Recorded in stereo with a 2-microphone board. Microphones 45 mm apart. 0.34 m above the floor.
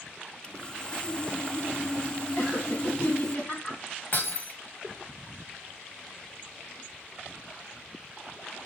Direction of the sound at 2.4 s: 40° left (ahead or behind).